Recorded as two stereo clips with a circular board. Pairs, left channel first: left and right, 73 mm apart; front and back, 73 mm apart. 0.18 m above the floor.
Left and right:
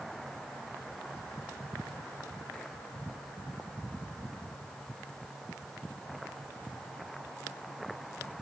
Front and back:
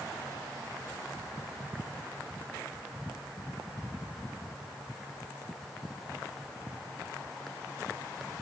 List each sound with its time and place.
Only background noise.